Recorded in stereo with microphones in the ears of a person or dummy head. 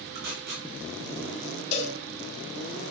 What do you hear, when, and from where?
0.1 s tape being pulled: 60° right (ahead or behind), 2.5 m
1.7 s a cowbell: 35° left (ahead or behind), 2.5 m